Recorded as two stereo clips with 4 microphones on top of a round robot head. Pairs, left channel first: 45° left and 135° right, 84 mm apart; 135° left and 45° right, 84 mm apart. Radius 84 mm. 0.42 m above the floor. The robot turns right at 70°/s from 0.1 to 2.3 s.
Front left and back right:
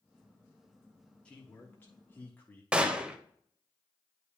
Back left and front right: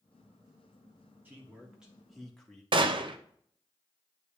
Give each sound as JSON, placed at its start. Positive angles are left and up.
{"t": 1.2, "sound": "a man speaking", "azimuth_deg": -15, "distance_m": 1.4}
{"t": 2.7, "sound": "a gunshot", "azimuth_deg": -60, "distance_m": 0.7}